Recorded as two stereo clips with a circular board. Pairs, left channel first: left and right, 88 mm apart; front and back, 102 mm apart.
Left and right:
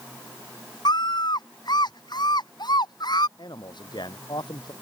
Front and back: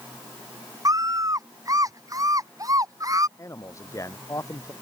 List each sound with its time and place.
0.8 s a scream: 125° left
3.4 s a man speaking: 60° left